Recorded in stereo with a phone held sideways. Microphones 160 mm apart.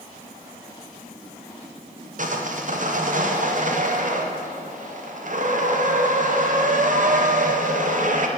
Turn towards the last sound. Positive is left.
turn(degrees=-55)  # may be behind; listen again after turning